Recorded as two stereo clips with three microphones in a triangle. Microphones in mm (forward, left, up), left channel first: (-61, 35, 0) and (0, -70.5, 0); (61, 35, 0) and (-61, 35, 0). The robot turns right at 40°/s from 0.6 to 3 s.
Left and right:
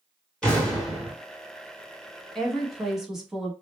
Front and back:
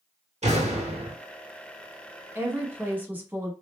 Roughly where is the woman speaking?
Behind.